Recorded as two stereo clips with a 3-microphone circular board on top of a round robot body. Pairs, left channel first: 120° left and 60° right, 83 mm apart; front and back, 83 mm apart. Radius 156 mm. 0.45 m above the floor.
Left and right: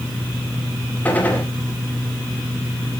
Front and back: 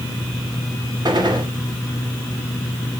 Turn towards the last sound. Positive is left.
turn(degrees=-175)